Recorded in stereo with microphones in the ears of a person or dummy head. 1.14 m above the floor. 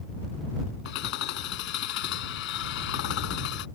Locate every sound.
0.8 s hammering: 75° left (ahead or behind)